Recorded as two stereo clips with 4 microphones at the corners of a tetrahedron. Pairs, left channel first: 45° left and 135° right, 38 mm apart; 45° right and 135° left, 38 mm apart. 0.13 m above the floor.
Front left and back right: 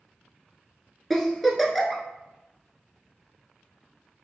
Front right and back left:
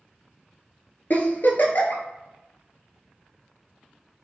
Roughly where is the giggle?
Ahead right.